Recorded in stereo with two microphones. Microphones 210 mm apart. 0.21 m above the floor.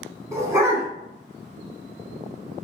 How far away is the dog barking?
About 0.7 m.